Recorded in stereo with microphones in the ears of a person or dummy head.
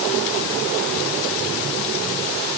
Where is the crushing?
I don't hear crushing.